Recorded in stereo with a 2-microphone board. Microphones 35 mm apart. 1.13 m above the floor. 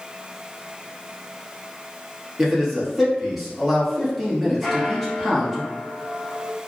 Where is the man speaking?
Centre (ahead or behind), 0.9 m.